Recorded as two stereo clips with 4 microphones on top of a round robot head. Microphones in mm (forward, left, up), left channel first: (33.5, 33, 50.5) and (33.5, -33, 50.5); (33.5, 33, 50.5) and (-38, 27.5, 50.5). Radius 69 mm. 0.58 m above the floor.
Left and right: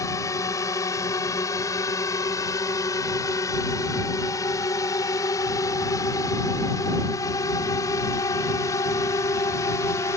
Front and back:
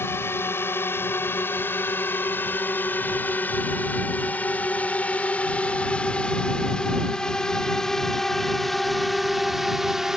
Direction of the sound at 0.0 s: 55° left.